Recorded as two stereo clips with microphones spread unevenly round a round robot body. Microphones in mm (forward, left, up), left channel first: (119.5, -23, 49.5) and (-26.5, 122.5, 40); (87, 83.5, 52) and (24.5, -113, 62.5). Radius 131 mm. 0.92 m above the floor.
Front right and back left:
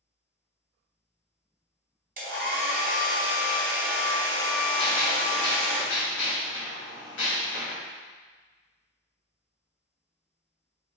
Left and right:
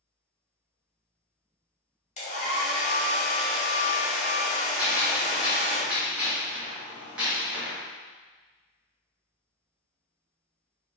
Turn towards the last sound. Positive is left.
turn(degrees=-25)